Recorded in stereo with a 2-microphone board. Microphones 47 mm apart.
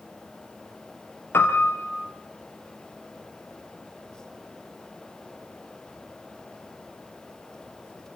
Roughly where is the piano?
Left.